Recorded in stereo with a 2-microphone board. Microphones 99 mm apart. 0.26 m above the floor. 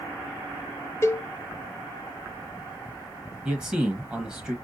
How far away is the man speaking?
About 1.1 m.